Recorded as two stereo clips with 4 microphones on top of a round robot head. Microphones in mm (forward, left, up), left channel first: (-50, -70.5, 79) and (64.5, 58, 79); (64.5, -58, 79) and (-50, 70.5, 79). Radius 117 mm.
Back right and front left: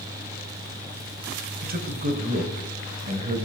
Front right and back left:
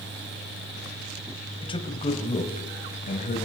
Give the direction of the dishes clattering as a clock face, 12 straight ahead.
No dishes clattering in this recording.